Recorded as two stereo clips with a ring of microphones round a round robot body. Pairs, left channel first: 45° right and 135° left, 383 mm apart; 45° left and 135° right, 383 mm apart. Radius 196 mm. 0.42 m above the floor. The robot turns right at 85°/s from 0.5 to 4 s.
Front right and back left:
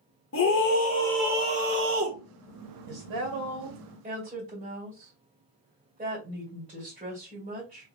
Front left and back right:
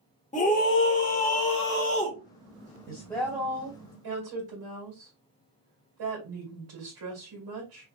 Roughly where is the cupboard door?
I don't hear a cupboard door.